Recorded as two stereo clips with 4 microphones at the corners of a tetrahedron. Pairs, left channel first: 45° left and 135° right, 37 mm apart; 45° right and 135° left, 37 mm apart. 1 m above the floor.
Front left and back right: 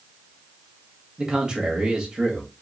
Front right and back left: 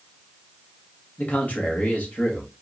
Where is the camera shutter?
I don't hear a camera shutter.